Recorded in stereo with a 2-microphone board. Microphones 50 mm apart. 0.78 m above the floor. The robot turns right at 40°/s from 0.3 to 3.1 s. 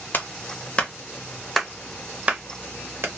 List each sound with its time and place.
0.1 s a clap: 40° left (ahead or behind), 0.9 m; by 3.1 s 45° right (ahead or behind), 0.9 m